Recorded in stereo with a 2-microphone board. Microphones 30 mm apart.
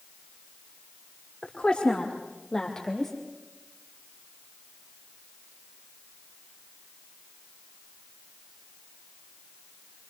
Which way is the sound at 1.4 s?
30° left (ahead or behind).